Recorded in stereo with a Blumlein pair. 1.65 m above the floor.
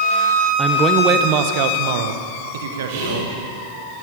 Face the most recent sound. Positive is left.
turn(degrees=-55)